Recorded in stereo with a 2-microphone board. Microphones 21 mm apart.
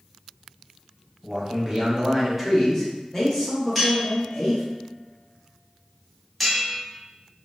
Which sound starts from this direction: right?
A man speaking, at 1.2 s.